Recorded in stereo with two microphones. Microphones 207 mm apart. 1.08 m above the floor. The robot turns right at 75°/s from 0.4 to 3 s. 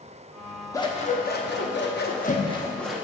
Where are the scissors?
20° left, 0.7 m; by 3.0 s 175° right, 0.7 m.